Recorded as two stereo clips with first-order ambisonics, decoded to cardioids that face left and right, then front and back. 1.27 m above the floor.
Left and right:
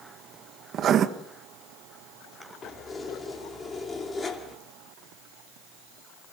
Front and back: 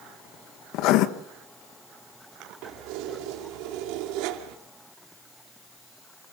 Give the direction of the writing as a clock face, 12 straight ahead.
1 o'clock.